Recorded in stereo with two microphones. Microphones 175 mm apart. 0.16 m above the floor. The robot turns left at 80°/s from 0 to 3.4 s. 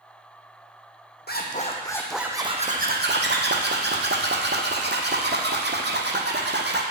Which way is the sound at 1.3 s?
70° left.